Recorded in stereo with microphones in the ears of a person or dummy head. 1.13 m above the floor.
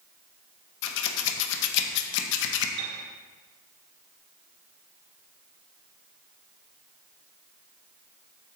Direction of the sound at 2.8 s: 55° right (ahead or behind).